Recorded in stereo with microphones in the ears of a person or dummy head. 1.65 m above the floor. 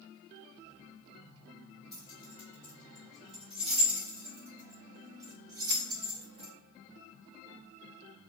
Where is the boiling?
No boiling in this recording.